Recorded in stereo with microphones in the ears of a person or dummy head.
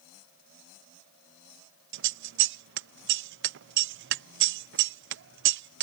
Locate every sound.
1.9 s scissors: 55° right (ahead or behind)